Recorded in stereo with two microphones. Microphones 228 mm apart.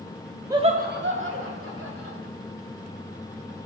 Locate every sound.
0.5 s laughter: 15° right (ahead or behind), 0.8 m; by 2.2 s 75° right (ahead or behind), 3 m